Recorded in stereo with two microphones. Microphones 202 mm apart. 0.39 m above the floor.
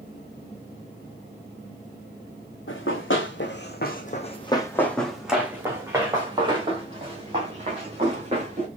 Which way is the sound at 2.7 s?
80° left.